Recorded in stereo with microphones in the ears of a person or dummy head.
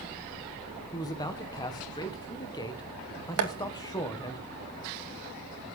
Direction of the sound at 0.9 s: 20° left (ahead or behind).